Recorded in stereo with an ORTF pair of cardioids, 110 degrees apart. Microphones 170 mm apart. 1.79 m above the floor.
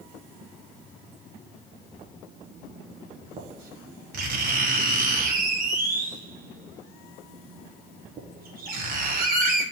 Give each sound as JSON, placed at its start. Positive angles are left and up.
{"t": 2.0, "sound": "writing", "azimuth_deg": -55, "distance_m": 1.7}